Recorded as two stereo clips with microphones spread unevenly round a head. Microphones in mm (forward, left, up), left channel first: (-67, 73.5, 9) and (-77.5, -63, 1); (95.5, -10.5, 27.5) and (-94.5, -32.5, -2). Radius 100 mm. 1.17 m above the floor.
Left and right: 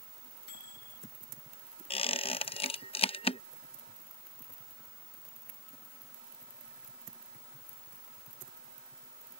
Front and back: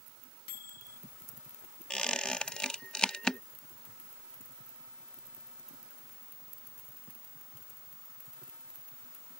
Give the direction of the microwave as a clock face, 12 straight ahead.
10 o'clock.